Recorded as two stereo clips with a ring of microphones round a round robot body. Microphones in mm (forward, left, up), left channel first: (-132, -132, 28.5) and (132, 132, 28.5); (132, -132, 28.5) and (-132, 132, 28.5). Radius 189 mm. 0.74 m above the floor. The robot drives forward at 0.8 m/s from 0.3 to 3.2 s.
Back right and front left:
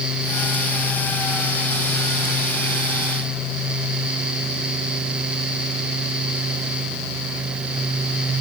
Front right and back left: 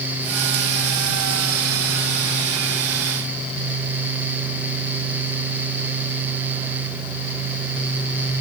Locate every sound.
Only background noise.